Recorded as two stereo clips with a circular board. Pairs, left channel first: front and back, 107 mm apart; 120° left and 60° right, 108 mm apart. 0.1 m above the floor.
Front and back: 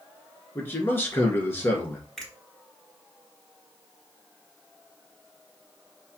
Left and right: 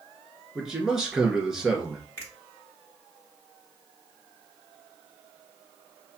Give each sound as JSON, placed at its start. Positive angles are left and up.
{"t": 0.6, "sound": "a man speaking", "azimuth_deg": 15, "distance_m": 1.3}
{"t": 2.2, "sound": "a finger snap", "azimuth_deg": 85, "distance_m": 1.6}